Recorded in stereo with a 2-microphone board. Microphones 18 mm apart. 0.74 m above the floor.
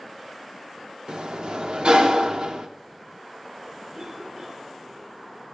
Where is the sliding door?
65° right (ahead or behind), 0.8 m.